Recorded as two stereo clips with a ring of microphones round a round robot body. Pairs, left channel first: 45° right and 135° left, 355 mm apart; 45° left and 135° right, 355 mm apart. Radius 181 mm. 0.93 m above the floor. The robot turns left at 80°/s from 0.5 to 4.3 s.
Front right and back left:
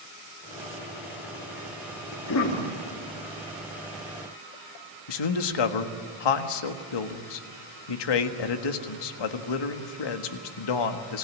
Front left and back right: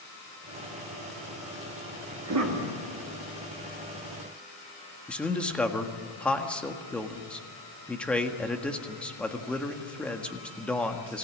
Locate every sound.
2.1 s a cough: 75° right, 2.5 m; by 2.7 s 120° right, 2.5 m
5.1 s a man speaking: 40° right, 1.6 m